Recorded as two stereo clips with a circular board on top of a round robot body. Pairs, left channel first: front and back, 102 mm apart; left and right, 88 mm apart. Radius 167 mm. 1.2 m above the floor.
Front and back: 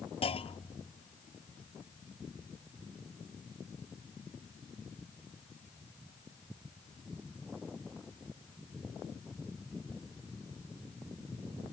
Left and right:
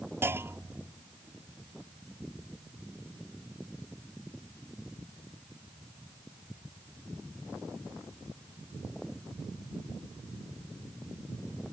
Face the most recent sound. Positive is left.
turn(degrees=-25)